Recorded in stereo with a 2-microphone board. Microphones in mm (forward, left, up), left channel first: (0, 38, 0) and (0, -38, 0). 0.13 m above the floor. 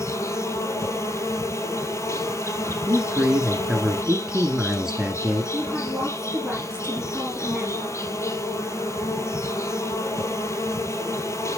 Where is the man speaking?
10° right (ahead or behind), 1.2 m.